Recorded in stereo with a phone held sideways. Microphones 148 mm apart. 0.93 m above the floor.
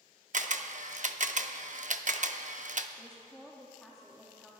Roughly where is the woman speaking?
Centre.